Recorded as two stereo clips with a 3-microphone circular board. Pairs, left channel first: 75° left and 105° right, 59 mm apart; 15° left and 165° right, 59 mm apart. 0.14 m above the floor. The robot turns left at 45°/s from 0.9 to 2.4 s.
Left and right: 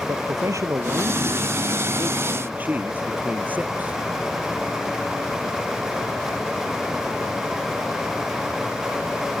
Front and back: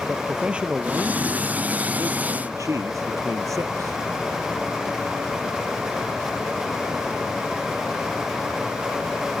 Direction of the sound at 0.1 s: 95° right.